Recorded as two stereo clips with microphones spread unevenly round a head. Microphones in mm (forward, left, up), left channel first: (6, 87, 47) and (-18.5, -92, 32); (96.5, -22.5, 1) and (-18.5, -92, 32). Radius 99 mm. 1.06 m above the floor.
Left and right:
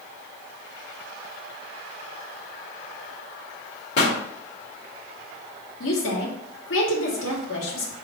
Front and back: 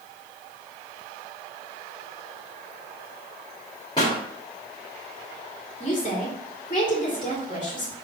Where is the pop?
105° left, 1.3 m.